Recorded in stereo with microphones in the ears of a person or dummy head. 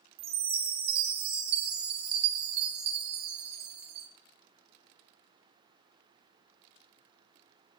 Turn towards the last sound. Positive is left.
turn(degrees=-35)  # may be behind; listen again after turning